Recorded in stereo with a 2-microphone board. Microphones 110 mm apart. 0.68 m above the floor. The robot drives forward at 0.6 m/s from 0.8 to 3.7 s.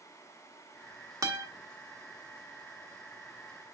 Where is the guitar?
30° right (ahead or behind), 1.3 m; by 1.5 s 25° right (ahead or behind), 1.4 m.